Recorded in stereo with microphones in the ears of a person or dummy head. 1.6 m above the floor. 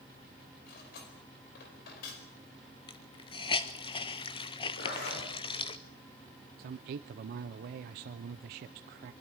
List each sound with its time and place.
0.7 s cutlery clinking: 50° left (ahead or behind), 5 m
2.9 s a hiss: 25° left (ahead or behind), 0.7 m
4.8 s a zipper: 60° left (ahead or behind), 5.5 m
6.6 s a man speaking: 45° right (ahead or behind), 0.5 m